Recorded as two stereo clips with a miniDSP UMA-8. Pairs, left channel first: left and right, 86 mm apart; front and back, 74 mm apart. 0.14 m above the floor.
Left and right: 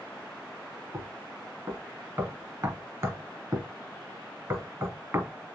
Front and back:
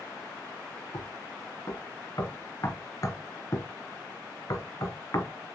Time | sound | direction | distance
0.9 | knocking | 40° right | 1.6 m